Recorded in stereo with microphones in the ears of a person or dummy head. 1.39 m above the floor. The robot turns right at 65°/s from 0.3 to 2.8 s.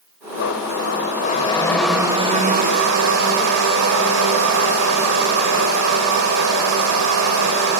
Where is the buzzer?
I don't hear a buzzer.